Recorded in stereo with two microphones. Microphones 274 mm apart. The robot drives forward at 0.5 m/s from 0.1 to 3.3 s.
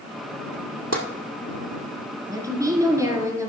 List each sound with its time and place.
0.9 s tapping: 65° right (ahead or behind), 1.8 m; by 1.0 s 60° right (ahead or behind), 1.9 m
2.3 s a woman speaking: 10° right (ahead or behind), 1.8 m